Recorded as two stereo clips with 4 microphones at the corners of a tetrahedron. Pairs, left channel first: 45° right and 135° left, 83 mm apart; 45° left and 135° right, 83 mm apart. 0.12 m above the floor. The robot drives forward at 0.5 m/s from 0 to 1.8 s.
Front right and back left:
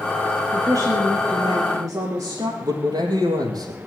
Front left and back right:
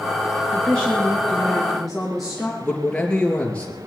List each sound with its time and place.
0.5 s a woman speaking: 120° left, 2.5 m; by 2.5 s 130° left, 3 m
2.6 s a man speaking: 120° left, 3.5 m